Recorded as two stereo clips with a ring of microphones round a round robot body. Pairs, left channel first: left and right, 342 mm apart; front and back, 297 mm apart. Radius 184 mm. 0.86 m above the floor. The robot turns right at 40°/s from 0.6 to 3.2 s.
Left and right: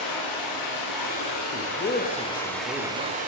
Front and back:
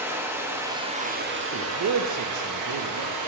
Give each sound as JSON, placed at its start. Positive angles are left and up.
{"t": 0.0, "sound": "running water", "azimuth_deg": 100, "distance_m": 1.3}
{"t": 1.4, "sound": "a man speaking", "azimuth_deg": 135, "distance_m": 0.6}